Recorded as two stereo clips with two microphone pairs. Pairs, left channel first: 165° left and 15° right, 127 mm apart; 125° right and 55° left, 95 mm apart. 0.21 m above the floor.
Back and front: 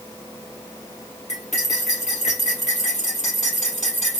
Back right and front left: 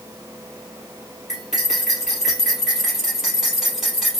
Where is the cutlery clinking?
140° left, 2.5 m.